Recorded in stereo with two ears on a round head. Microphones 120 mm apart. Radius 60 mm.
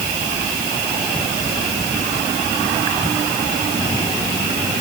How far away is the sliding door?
I don't hear a sliding door.